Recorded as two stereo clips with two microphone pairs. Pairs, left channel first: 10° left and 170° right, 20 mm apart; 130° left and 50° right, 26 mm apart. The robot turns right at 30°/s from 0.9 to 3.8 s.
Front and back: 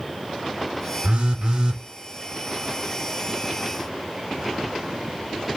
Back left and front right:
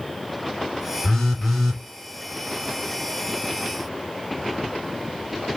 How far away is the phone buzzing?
About 1.2 m.